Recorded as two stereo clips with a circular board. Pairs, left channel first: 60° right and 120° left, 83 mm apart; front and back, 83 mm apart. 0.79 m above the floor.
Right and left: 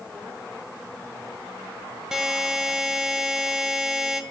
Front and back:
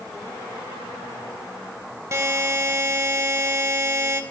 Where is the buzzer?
160° right, 0.6 m.